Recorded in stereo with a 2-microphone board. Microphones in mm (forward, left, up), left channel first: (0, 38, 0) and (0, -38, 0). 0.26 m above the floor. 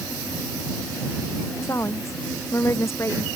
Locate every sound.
1.6 s a woman speaking: 35° left (ahead or behind)